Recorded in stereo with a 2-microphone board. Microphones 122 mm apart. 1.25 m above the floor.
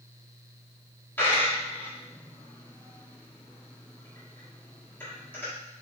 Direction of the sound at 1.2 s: 15° left (ahead or behind).